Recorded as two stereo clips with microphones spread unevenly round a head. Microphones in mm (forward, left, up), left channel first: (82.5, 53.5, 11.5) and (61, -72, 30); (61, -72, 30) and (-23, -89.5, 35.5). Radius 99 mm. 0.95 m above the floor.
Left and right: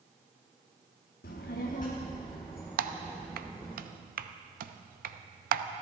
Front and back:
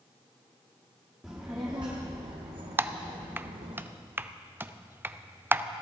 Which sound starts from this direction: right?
Typing on a keyboard, at 2.8 s.